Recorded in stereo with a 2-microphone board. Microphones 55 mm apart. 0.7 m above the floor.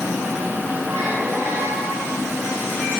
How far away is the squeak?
About 8.5 m.